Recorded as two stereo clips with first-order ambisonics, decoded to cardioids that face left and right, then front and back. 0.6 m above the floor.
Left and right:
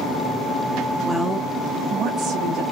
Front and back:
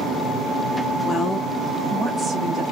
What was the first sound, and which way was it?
A woman speaking, 5° left.